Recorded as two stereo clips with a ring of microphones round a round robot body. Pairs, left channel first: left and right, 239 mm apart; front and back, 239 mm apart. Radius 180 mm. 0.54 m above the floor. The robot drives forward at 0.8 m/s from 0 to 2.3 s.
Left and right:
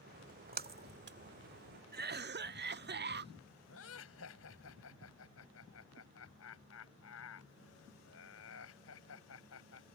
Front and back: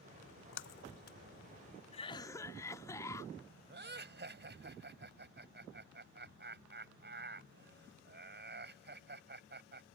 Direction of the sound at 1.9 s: 55° right.